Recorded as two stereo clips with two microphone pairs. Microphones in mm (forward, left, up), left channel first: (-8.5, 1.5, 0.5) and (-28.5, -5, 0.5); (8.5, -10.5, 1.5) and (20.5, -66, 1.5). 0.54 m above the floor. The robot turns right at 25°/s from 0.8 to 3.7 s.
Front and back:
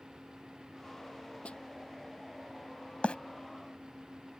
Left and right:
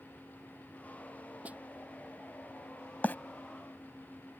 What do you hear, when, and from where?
1.4 s a snare drum: 15° right; by 1.6 s 10° right
3.0 s a bird: 40° left; by 3.1 s 45° left